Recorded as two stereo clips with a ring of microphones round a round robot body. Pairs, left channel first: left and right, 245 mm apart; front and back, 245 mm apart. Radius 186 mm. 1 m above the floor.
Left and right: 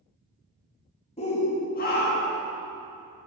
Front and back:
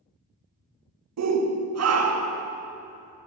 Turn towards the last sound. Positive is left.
turn(degrees=150)